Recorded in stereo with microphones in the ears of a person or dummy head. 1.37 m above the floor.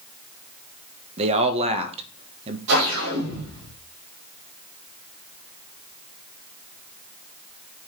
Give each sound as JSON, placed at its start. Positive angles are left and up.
{"t": 1.2, "sound": "a man speaking", "side_deg": -40, "distance_m": 1.3}
{"t": 2.7, "sound": "a whoosh", "side_deg": -70, "distance_m": 3.5}